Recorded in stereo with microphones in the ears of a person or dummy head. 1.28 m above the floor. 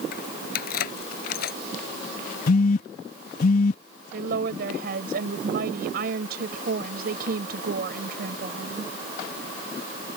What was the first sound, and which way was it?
Keys jangling, 55° left (ahead or behind).